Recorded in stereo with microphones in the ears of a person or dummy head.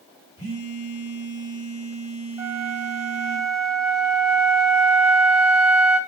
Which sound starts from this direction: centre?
A flute, at 2.4 s.